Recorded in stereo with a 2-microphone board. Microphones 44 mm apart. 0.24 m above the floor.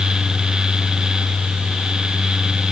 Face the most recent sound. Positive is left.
No sound to turn to.